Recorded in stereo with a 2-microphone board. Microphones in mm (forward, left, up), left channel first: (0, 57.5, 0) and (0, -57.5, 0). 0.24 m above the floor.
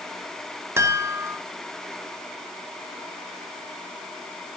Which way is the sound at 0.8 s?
25° right (ahead or behind).